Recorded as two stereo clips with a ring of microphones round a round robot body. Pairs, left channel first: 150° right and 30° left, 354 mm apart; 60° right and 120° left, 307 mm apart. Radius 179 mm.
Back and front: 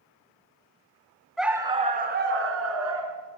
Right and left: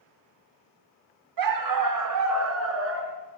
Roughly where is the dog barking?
Behind left.